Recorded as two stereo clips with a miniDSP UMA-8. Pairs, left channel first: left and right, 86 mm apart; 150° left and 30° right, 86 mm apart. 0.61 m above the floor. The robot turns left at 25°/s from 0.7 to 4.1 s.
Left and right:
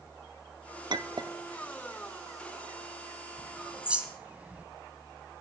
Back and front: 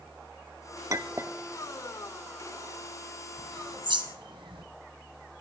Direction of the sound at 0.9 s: 75° right.